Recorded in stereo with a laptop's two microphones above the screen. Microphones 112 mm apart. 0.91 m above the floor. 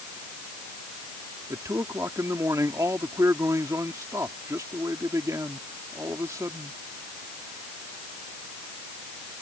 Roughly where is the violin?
I don't hear a violin.